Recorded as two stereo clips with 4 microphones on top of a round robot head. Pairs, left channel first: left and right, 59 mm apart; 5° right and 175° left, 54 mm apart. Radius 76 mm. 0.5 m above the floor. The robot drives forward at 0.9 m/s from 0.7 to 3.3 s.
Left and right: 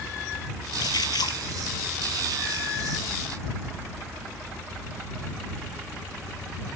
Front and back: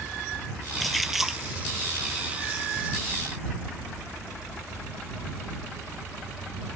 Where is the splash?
85° left; by 1.4 s 95° left.